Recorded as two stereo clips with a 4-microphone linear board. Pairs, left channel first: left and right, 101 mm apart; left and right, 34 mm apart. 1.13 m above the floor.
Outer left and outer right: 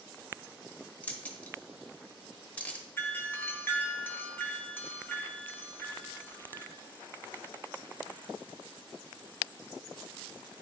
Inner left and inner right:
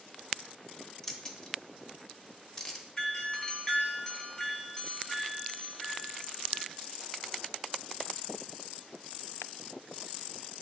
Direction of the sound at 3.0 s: 20° left (ahead or behind).